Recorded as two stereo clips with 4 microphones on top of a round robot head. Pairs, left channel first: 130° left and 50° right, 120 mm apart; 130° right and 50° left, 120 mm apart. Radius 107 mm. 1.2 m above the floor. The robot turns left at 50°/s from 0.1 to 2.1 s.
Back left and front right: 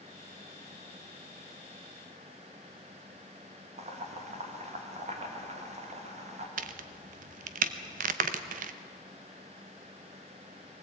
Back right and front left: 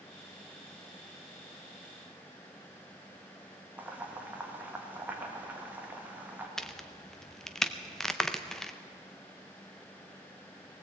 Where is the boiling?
25° right, 2 m.